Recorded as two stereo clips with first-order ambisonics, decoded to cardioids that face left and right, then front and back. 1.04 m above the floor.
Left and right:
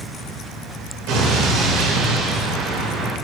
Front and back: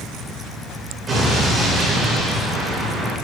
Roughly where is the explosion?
Right.